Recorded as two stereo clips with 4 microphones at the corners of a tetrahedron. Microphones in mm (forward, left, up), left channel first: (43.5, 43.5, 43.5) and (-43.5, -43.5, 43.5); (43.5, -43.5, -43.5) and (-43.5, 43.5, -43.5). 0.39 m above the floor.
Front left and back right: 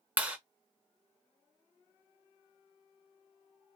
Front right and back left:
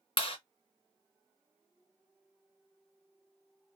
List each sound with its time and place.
0.2 s a clap: 60° right, 0.9 m